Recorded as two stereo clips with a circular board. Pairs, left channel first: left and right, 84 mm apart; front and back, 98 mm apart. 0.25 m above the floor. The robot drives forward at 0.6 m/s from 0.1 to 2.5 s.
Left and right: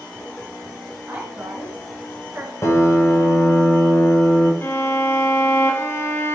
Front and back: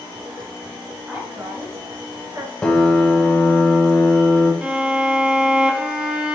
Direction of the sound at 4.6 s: 110° left.